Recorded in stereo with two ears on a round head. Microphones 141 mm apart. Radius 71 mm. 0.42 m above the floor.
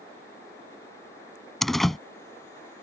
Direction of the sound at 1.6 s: Centre (ahead or behind).